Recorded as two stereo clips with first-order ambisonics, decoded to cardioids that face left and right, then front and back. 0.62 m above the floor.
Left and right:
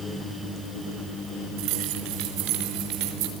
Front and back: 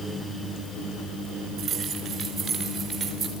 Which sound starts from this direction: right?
Keys jangling, at 1.6 s.